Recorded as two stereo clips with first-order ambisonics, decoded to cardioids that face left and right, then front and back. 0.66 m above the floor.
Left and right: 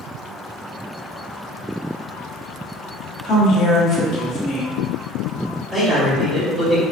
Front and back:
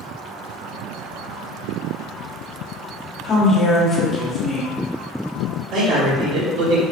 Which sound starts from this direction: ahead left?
A woman speaking, at 3.2 s.